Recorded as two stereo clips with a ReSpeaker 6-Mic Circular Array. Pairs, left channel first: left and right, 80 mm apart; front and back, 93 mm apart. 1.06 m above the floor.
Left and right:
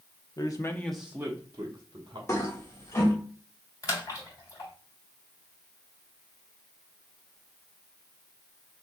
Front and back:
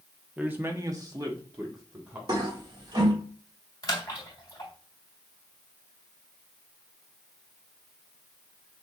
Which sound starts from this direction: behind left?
A toilet flushing, at 2.3 s.